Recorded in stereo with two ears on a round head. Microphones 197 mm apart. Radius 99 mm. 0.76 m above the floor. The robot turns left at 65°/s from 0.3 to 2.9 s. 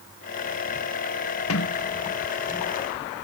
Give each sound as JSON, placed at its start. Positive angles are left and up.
{"t": 1.5, "sound": "a sliding door", "side_deg": 70}